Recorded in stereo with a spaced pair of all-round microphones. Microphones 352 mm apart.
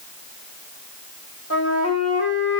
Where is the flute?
45° left (ahead or behind), 0.9 m.